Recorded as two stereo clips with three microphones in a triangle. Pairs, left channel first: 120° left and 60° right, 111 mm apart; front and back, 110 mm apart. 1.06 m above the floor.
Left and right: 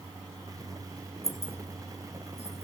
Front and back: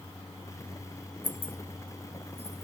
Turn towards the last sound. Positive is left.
turn(degrees=-30)